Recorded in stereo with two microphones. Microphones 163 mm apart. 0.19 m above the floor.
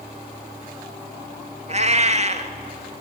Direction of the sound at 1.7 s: 45° right (ahead or behind).